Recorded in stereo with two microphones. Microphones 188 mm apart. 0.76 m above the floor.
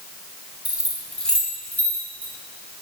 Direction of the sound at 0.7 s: 10° right (ahead or behind).